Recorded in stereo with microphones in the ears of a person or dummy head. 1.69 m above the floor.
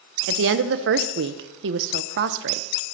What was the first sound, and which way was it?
A woman speaking, 70° right (ahead or behind).